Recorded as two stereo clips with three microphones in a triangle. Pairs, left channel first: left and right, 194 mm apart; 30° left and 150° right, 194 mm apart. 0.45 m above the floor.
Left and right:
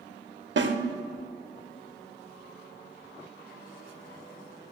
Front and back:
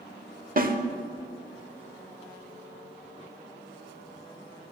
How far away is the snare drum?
About 0.6 m.